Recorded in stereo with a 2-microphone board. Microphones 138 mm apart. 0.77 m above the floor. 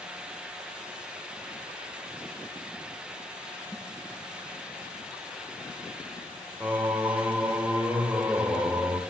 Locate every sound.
3.7 s a snare drum: 25° left (ahead or behind), 8 m
6.6 s singing: 10° right (ahead or behind), 2.0 m